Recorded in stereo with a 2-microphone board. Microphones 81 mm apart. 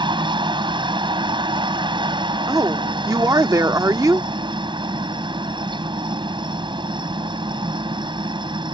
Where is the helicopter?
70° right (ahead or behind).